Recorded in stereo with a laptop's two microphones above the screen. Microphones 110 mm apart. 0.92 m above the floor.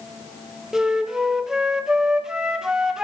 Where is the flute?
5° right (ahead or behind), 0.6 m.